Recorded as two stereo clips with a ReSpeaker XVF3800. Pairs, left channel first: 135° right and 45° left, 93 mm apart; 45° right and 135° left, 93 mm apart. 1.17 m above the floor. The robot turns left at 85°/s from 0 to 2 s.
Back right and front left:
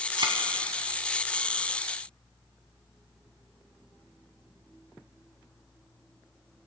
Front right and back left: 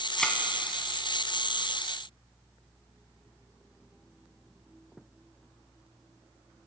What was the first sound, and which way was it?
A thud, 40° left.